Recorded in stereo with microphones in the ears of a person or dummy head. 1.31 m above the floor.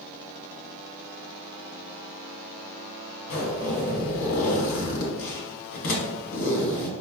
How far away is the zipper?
About 1.1 m.